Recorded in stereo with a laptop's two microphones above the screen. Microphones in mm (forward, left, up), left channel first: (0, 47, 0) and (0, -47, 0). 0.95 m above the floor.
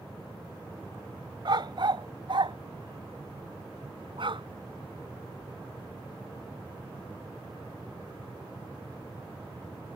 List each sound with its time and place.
1.4 s a dog barking: 55° right (ahead or behind); by 4.5 s 60° right (ahead or behind)